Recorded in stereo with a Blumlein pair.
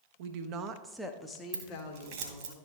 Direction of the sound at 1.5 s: 45° right.